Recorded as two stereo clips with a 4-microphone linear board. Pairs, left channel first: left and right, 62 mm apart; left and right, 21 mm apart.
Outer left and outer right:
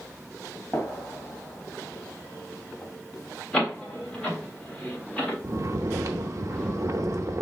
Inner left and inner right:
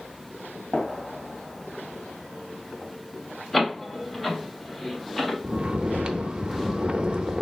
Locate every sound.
0.7 s a gunshot: 25° left (ahead or behind), 1.9 m
3.5 s a door slam: 15° left (ahead or behind), 1.4 m
5.4 s snoring: 55° right (ahead or behind), 0.6 m